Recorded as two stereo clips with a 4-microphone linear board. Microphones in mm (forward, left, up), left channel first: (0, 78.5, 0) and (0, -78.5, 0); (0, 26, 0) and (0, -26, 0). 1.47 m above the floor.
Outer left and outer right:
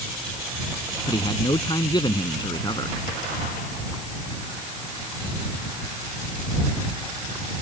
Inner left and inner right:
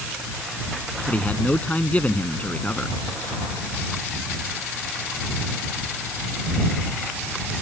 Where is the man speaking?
30° left (ahead or behind); by 3.0 s 25° left (ahead or behind).